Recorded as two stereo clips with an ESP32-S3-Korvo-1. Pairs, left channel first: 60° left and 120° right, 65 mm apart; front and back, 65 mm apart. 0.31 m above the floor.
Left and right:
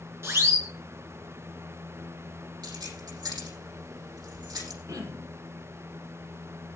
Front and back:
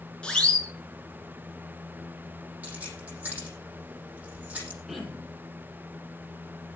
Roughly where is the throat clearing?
Right.